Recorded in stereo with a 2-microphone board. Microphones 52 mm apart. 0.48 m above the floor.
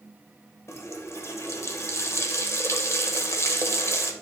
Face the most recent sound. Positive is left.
turn(degrees=60)  # may be behind; listen again after turning